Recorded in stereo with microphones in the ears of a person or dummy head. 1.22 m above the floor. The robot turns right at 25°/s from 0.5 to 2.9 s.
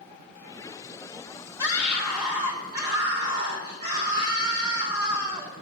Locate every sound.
1.6 s a scream: 160° right, 3 m; by 5.5 s 125° right, 3 m